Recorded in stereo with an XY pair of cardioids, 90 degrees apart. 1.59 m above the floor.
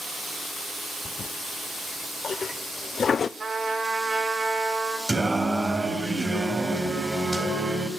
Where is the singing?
15° right, 4.5 m.